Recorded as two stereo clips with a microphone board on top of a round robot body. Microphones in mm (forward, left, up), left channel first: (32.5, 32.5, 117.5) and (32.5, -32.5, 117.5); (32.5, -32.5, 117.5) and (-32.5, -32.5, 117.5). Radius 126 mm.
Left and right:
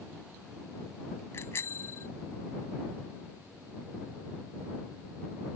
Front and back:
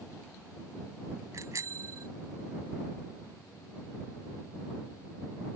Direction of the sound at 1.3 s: 140° left.